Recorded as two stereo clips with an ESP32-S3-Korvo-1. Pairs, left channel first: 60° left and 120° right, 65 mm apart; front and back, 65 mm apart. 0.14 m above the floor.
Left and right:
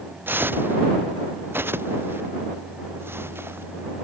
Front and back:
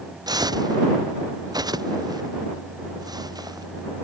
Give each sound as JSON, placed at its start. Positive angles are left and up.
{"t": 0.3, "sound": "footsteps", "azimuth_deg": 180}